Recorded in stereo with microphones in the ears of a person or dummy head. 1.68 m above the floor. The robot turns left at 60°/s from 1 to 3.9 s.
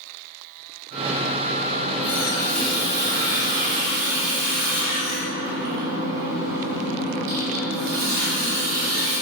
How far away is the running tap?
About 3 m.